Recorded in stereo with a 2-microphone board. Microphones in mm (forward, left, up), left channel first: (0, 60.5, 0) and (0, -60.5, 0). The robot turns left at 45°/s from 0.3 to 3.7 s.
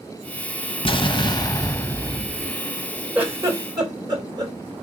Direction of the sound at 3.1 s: 10° right (ahead or behind).